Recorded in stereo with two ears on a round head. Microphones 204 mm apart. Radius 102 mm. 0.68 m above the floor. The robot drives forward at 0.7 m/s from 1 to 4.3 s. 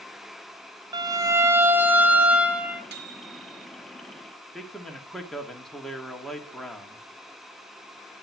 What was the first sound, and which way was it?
A violin, 20° right (ahead or behind).